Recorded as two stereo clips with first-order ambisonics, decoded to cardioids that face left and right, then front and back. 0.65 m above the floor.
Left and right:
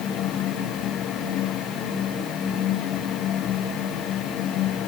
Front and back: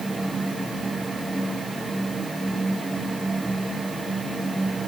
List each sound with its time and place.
Only background noise.